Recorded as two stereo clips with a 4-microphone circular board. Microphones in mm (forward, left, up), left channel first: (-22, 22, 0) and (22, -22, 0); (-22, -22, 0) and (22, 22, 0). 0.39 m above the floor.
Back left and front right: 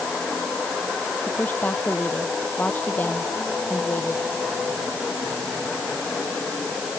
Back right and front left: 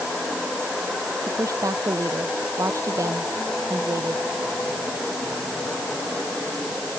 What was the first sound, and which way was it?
A woman speaking, 70° left.